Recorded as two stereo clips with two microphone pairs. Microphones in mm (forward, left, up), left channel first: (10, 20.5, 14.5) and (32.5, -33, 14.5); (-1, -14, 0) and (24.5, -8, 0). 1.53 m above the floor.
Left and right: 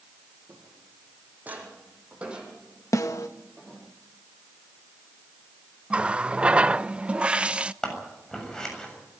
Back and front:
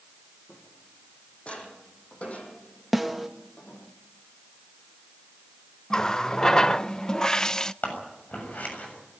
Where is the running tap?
115° right, 0.6 m.